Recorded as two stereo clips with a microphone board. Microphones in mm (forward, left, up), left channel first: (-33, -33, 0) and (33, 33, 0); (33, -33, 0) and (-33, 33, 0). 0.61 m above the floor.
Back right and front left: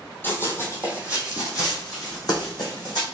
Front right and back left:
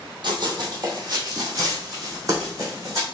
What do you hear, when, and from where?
0.2 s running footsteps: 160° left, 1.3 m; by 3.0 s 170° right, 2.5 m